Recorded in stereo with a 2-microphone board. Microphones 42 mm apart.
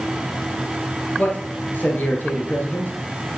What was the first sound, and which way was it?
A man speaking, 45° left (ahead or behind).